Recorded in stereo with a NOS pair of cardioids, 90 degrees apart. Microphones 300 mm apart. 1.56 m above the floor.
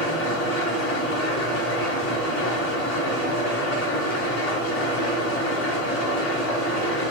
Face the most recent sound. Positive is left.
turn(degrees=65)